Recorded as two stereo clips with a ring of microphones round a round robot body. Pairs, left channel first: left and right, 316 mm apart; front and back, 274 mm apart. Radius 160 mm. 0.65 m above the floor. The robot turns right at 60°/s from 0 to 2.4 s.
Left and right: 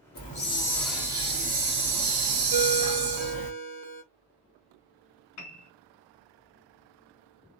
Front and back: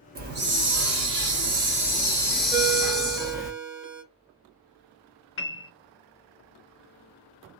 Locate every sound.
0.1 s a hiss: 135° left, 1.0 m; by 3.5 s 90° right, 1.0 m
2.5 s a ringtone: 95° right, 1.4 m
5.4 s a piano: 50° left, 0.6 m